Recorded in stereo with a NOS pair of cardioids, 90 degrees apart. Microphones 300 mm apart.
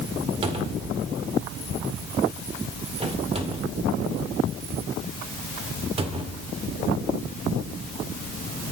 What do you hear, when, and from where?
0.4 s a cupboard door: 20° right, 1.9 m